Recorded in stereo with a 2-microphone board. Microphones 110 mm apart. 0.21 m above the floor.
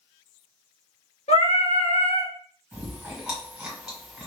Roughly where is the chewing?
Centre.